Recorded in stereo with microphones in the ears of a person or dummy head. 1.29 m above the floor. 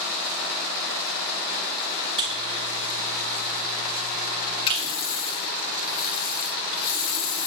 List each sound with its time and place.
2.2 s a buzzer: 30° right (ahead or behind), 3.5 m
4.7 s a running tap: 25° left (ahead or behind), 1.8 m